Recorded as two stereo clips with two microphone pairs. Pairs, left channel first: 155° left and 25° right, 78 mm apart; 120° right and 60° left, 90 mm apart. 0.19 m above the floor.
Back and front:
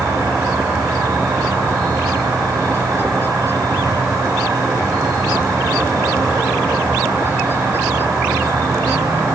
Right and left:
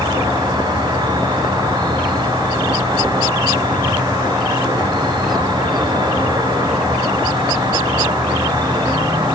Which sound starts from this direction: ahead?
An insect, at 0.0 s.